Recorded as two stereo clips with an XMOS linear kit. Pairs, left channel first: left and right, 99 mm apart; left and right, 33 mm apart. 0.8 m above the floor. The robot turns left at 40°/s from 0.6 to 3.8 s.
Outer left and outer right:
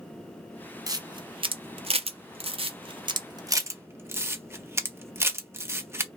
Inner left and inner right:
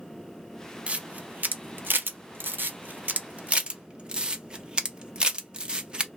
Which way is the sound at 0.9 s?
35° right (ahead or behind).